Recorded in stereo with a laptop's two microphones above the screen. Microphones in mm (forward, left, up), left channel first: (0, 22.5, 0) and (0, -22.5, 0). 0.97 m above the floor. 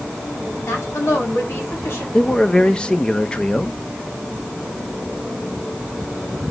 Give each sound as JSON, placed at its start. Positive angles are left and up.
{"t": 0.7, "sound": "a woman speaking", "side_deg": 80, "distance_m": 7.0}
{"t": 2.1, "sound": "a man speaking", "side_deg": 20, "distance_m": 1.2}